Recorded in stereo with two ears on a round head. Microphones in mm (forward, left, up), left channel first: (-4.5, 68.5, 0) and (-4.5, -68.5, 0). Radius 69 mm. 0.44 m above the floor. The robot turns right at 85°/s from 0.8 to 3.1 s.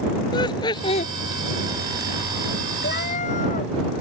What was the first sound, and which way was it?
Laughter, 30° left (ahead or behind).